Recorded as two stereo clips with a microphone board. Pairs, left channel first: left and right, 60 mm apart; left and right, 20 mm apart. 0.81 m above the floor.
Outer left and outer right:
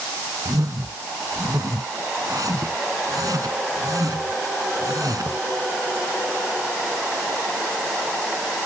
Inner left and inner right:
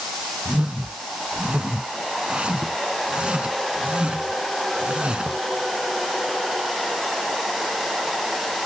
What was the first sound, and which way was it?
A whoosh, 70° right (ahead or behind).